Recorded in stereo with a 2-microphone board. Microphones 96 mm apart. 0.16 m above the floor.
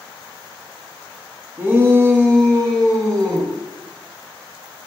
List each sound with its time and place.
1.6 s a shout: 25° right (ahead or behind), 1.9 m; by 3.5 s 50° right (ahead or behind), 2 m